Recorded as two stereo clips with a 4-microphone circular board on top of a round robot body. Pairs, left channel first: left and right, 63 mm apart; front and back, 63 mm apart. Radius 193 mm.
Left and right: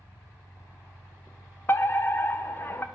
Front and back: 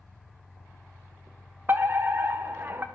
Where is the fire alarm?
135° left, 1.8 m.